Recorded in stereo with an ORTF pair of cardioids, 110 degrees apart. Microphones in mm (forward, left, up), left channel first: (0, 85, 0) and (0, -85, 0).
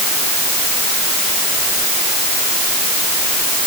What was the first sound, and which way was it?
Only background noise.